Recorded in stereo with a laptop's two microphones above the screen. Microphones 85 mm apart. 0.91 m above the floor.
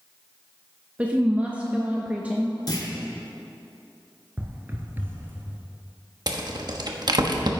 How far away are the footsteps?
About 0.9 m.